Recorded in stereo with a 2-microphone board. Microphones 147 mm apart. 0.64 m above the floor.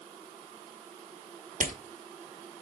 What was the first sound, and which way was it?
A rattle, 60° right (ahead or behind).